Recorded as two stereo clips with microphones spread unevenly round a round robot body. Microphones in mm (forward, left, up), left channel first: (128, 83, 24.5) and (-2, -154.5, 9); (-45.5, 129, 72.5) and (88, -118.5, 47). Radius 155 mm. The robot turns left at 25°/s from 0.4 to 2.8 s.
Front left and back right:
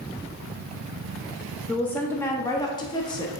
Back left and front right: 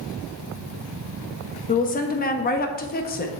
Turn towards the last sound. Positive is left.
turn(degrees=120)